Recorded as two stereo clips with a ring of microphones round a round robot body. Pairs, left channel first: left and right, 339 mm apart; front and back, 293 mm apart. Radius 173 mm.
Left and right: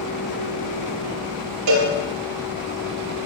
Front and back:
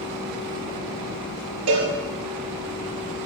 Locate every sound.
1.7 s a cowbell: 130° right, 3.5 m